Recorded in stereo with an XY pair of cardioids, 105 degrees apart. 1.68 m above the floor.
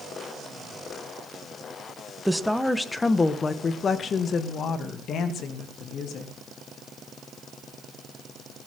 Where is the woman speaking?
Straight ahead, 1.7 m; by 6.3 s 75° left, 3.5 m.